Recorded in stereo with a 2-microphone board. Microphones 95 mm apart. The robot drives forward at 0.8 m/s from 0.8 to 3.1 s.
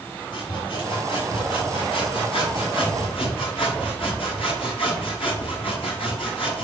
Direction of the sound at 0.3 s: 55° left (ahead or behind).